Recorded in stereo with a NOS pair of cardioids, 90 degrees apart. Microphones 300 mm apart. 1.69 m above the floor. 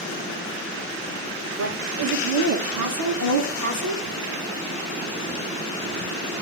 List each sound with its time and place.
1.6 s a woman speaking: 70° right, 6 m; by 4.0 s 80° right, 5 m